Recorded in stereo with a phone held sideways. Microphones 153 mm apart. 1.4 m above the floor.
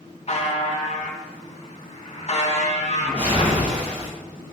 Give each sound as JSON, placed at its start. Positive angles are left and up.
{"t": 0.3, "sound": "a buzzer", "side_deg": 45, "distance_m": 3.0}
{"t": 3.0, "sound": "a whoosh", "side_deg": -45, "distance_m": 4.5}